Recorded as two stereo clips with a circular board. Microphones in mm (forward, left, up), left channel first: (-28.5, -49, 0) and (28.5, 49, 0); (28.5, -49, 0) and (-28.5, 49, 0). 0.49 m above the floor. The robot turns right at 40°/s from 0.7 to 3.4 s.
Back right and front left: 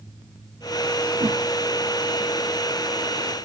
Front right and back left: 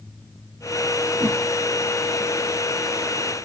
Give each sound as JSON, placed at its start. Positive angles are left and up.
{"t": 1.2, "sound": "a whoosh", "azimuth_deg": 40, "distance_m": 3.0}